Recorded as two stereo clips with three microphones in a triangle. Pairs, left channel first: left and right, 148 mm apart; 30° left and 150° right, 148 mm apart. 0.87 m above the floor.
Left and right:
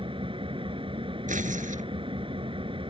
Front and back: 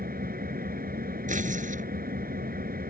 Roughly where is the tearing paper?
Behind right.